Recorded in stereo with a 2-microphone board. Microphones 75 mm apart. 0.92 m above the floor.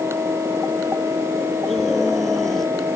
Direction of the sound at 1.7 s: 5° left (ahead or behind).